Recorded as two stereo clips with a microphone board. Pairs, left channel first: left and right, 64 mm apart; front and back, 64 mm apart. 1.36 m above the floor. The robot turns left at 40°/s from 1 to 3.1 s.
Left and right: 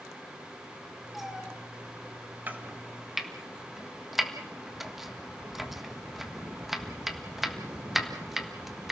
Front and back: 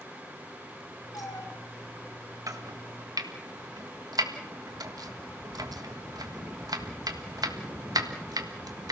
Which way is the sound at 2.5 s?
150° right.